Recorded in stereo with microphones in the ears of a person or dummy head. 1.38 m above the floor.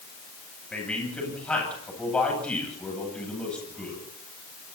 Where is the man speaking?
5° left (ahead or behind), 9.5 m.